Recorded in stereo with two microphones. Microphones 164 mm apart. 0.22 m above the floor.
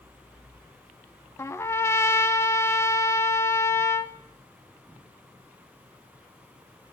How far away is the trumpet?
About 0.5 m.